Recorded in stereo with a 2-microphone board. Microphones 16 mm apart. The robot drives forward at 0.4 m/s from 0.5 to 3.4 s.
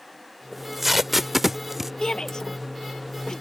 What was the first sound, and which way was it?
Tape being pulled, 10° right (ahead or behind).